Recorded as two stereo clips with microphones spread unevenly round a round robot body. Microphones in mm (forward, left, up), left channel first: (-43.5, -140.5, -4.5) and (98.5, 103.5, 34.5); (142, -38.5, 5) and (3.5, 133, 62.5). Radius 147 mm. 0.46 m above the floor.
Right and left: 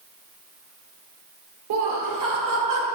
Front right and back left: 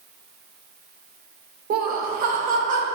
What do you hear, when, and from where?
1.7 s laughter: 75° left, 1.5 m; by 2.9 s 70° left, 2 m